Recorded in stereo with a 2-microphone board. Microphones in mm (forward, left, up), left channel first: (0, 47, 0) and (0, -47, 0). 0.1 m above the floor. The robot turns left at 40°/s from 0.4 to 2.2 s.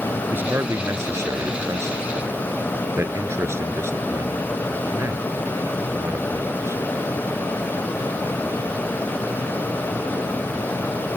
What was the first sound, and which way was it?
A man speaking, 20° right (ahead or behind).